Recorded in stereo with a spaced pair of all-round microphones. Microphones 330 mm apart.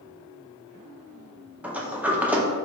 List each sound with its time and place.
1.6 s a sliding door: 5° right (ahead or behind), 0.6 m